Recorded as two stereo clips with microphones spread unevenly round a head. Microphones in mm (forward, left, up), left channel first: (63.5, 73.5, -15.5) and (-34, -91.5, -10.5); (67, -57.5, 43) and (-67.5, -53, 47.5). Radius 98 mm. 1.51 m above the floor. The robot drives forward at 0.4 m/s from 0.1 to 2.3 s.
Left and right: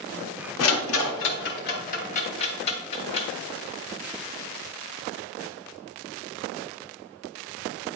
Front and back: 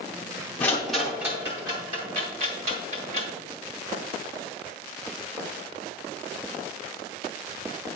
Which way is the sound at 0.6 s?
80° left.